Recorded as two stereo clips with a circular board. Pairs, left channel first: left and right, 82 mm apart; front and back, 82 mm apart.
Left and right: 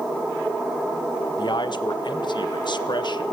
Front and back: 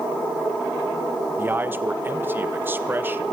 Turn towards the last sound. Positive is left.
turn(degrees=115)